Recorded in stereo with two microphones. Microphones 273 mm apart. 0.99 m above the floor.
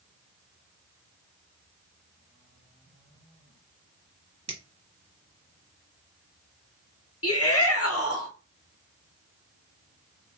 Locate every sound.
4.5 s a finger snap: 65° right (ahead or behind), 1.0 m
7.2 s a shout: 55° left (ahead or behind), 0.8 m